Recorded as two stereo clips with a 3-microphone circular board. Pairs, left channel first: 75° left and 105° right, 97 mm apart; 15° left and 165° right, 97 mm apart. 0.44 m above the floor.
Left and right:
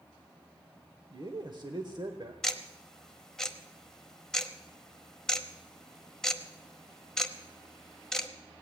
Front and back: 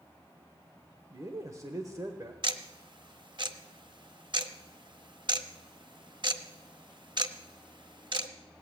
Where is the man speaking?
120° right, 1.1 m.